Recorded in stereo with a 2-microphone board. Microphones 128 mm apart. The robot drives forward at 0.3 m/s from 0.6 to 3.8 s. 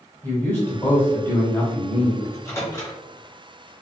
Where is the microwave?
20° left (ahead or behind), 1.0 m.